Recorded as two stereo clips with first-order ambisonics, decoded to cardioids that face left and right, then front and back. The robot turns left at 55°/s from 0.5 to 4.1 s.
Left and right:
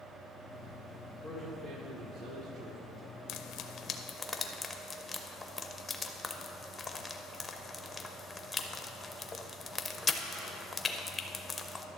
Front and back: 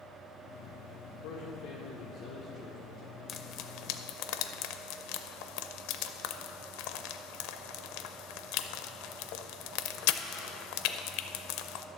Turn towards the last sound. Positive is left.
turn(degrees=15)